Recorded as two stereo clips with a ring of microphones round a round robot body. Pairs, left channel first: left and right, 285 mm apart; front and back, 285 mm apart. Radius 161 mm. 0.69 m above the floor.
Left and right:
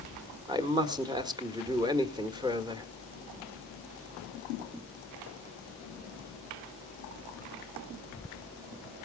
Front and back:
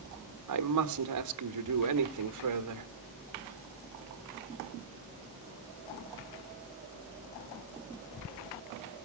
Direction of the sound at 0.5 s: 165° right.